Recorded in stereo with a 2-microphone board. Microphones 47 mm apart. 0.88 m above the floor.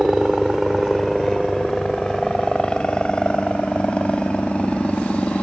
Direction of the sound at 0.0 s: 10° right (ahead or behind).